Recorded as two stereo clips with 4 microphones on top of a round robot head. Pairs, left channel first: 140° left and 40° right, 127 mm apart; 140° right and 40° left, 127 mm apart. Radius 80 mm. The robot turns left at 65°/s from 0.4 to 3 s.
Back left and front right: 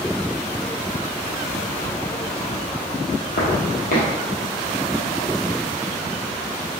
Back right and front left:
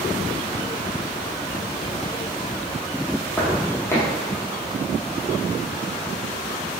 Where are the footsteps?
150° left, 1.1 m.